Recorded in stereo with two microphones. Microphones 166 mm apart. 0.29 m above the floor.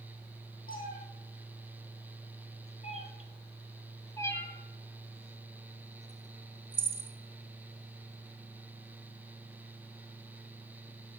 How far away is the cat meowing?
About 3 m.